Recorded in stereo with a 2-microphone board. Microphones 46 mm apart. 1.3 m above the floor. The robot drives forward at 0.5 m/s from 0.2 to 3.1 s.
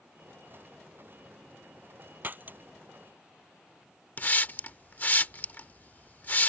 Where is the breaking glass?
40° right (ahead or behind).